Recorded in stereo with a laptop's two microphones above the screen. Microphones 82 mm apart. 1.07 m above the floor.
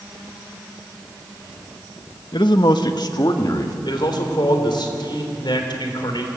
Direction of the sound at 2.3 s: 65° left (ahead or behind).